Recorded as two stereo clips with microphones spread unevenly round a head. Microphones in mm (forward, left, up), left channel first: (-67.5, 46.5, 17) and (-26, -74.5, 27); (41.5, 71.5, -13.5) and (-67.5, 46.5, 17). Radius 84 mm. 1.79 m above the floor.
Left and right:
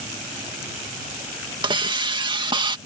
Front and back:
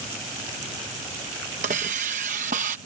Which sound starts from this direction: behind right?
A hiss, at 1.6 s.